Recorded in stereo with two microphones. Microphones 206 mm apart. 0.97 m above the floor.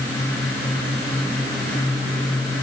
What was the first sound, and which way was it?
Only background noise.